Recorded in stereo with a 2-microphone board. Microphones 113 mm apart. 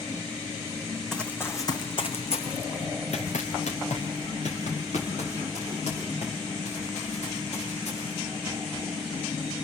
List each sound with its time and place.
1.1 s running footsteps: 5° left (ahead or behind), 1.4 m; by 8.3 s 75° left (ahead or behind), 8.5 m